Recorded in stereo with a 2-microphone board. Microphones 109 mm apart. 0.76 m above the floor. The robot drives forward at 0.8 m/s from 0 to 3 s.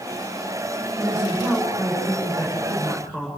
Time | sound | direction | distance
1.0 | a woman speaking | 25° left (ahead or behind) | 7.5 m